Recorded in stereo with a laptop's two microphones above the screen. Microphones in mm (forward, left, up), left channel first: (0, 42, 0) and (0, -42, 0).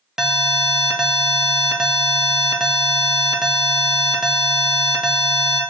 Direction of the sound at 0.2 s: 5° right (ahead or behind).